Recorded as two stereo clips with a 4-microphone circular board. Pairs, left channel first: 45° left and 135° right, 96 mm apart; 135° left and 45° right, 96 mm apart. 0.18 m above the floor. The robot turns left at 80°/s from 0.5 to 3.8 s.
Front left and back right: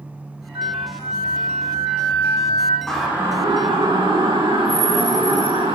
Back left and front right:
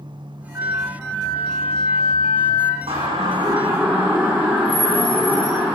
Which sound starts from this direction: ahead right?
A siren, at 2.9 s.